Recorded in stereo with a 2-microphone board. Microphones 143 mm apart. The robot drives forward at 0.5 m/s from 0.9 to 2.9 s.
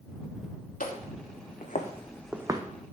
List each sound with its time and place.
0.8 s footsteps: 85° left, 2.5 m; by 2.6 s 30° right (ahead or behind), 1.0 m